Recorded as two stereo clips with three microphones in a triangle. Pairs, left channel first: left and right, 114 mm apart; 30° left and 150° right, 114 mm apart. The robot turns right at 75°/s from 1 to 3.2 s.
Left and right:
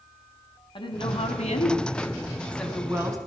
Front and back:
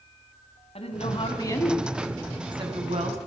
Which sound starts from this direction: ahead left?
A woman speaking, at 0.8 s.